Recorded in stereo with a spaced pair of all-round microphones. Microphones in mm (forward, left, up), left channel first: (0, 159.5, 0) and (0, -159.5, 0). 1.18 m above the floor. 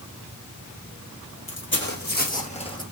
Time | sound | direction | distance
1.5 | footsteps | 40° left (ahead or behind) | 1.7 m